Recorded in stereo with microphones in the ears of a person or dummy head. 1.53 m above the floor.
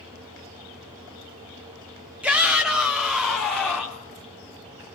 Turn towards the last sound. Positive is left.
turn(degrees=10)  # may be behind; listen again after turning